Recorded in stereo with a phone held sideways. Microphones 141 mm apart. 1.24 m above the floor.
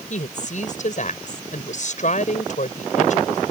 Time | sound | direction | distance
0.1 | a woman speaking | 55° left (ahead or behind) | ?